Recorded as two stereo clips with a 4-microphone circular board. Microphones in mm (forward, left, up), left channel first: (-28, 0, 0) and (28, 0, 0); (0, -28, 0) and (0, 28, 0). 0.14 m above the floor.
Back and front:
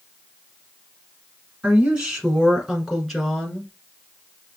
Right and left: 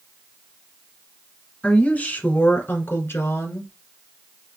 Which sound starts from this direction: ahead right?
A woman speaking, at 1.6 s.